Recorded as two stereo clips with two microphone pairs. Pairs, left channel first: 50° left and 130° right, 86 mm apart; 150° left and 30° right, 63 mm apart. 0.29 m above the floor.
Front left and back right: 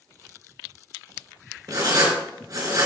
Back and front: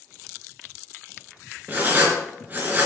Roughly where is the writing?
Right.